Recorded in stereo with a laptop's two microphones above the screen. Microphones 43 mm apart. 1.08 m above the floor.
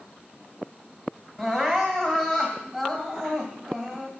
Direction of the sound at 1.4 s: 10° right (ahead or behind).